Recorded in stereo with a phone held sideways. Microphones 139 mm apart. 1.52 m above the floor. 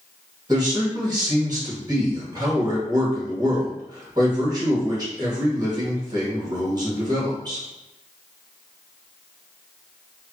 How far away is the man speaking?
About 1.2 m.